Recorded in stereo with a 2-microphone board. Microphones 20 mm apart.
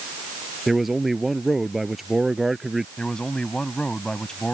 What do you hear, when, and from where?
0.7 s a man speaking: 15° right (ahead or behind)
3.0 s a man speaking: 35° left (ahead or behind)